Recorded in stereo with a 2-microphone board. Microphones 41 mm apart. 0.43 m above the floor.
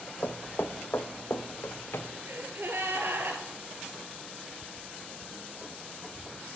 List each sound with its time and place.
0.2 s footsteps: 55° left (ahead or behind), 0.9 m; by 2.1 s 65° left (ahead or behind), 1.6 m
2.3 s a gasp: 65° right (ahead or behind), 1.8 m